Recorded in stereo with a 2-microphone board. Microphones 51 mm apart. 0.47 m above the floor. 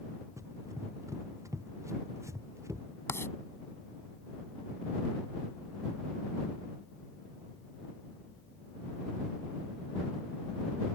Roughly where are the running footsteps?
Right.